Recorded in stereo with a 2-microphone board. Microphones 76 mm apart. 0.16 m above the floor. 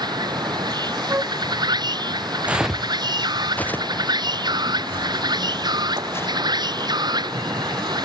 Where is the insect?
75° right (ahead or behind).